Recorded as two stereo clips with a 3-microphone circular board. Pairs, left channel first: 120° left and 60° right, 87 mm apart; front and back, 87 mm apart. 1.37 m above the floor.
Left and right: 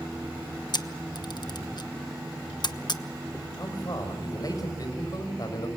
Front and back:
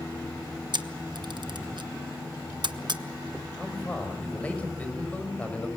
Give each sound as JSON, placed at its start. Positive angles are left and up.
{"t": 0.7, "sound": "a camera shutter", "azimuth_deg": 150, "distance_m": 1.0}
{"t": 3.6, "sound": "a man speaking", "azimuth_deg": 75, "distance_m": 6.5}